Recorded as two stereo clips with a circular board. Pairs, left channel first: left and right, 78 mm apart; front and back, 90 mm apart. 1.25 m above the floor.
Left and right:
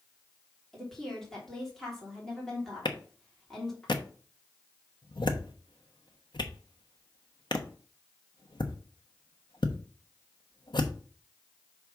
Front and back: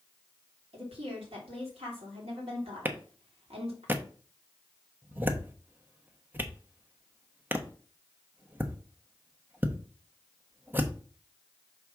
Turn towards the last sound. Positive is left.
turn(degrees=110)